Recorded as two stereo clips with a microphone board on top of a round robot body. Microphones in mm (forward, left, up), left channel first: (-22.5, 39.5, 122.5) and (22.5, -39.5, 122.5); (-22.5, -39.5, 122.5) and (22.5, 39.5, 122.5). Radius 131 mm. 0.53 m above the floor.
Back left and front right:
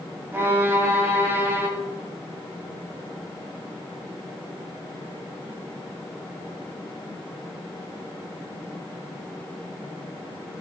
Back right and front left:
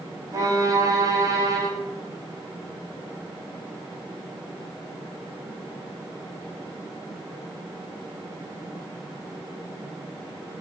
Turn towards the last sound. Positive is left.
turn(degrees=5)